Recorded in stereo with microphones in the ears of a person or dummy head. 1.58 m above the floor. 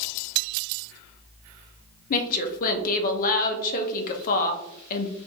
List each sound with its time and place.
2.1 s a woman speaking: 45° left (ahead or behind), 0.7 m